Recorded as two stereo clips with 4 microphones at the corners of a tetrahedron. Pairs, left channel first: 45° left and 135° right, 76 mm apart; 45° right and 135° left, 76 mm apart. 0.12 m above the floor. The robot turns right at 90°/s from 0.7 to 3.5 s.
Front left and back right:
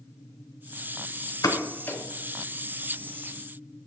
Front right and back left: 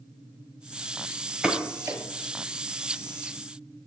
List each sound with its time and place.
1.4 s a pop: 60° left, 0.9 m; by 2.0 s 115° left, 0.9 m